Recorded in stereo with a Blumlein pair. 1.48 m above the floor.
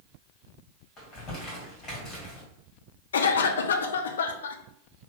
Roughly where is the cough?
Ahead left.